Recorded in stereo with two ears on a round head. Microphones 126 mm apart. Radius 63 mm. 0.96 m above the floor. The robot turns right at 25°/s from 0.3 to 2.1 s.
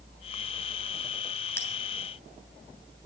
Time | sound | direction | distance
1.6 | a bell | 20° left (ahead or behind) | 3 m